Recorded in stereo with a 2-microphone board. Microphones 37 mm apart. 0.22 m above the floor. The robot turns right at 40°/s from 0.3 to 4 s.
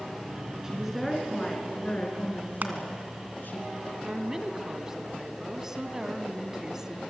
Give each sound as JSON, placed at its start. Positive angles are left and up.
{"t": 0.6, "sound": "a woman speaking", "azimuth_deg": -15, "distance_m": 3.5}
{"t": 2.6, "sound": "crushing", "side_deg": -55, "distance_m": 2.5}
{"t": 4.0, "sound": "a woman speaking", "side_deg": -15, "distance_m": 1.4}